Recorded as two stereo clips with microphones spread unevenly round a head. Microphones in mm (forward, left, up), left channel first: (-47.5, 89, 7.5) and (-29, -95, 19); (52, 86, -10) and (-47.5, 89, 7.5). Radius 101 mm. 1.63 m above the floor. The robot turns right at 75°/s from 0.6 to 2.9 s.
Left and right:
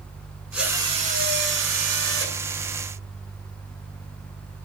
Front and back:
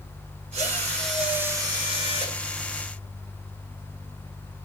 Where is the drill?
170° right, 9 m; by 2.4 s 35° right, 9 m.